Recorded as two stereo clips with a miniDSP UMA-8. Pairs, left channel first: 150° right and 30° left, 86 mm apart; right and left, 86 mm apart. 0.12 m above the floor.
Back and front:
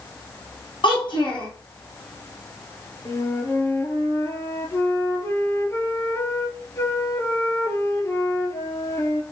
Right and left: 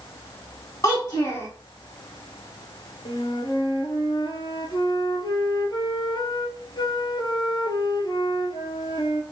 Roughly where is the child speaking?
Behind right.